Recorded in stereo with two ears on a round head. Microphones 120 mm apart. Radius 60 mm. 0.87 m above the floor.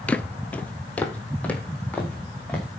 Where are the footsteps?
10° left (ahead or behind), 0.8 m.